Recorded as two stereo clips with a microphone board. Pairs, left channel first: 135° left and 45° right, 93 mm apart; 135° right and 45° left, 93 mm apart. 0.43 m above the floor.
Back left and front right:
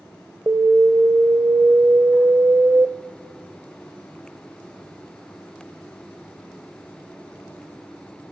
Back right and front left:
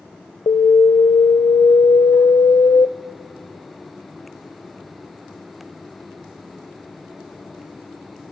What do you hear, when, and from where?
0.5 s an alarm: 105° right, 1.0 m